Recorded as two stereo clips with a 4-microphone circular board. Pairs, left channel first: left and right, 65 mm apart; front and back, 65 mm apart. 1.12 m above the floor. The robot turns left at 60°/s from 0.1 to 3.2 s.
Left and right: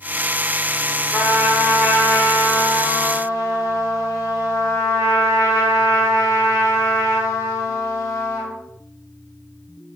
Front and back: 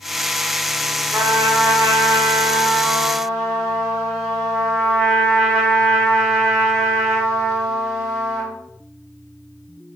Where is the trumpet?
140° right, 0.9 m; by 8.5 s 100° left, 0.9 m.